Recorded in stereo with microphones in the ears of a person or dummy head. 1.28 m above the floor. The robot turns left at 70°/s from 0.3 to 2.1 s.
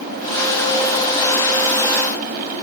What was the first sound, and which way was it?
Only background noise.